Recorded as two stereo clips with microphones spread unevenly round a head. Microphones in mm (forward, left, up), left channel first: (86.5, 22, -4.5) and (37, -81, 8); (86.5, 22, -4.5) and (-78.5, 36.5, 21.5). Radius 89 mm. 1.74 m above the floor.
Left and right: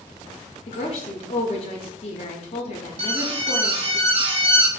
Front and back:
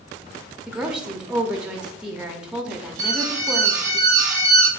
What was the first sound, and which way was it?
A woman speaking, 100° left.